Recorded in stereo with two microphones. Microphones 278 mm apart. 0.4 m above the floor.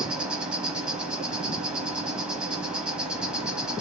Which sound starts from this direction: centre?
An insect, at 0.0 s.